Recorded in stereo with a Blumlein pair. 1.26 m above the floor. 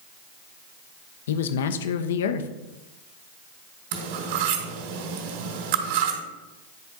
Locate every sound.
1.3 s a man speaking: 60° left, 0.8 m
3.9 s cutlery clinking: 50° right, 2.5 m